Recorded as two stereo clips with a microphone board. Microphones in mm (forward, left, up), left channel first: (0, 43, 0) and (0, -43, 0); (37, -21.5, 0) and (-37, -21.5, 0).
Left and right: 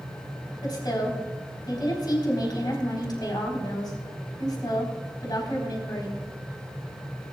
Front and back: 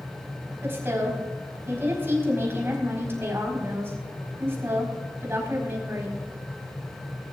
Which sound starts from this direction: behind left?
A woman speaking, at 0.6 s.